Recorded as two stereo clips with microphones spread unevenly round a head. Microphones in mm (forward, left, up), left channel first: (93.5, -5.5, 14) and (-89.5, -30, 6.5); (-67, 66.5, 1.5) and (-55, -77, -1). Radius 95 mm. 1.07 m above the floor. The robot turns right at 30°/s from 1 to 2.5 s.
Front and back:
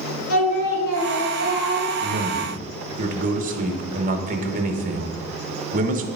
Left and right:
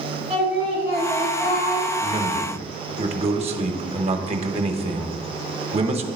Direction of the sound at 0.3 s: 5° right.